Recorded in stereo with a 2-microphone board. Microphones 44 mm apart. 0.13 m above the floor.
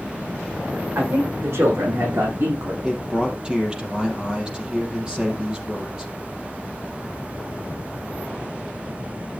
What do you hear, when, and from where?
0.9 s a man speaking: 80° right, 8.5 m; by 2.7 s 75° right (ahead or behind), 8 m
2.8 s a man speaking: 20° right (ahead or behind), 3.5 m